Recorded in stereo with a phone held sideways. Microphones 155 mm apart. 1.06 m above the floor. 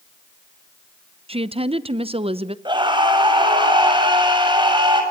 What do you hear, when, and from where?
1.3 s a woman speaking: 40° right (ahead or behind), 0.7 m
2.6 s a scream: 30° right (ahead or behind), 6.5 m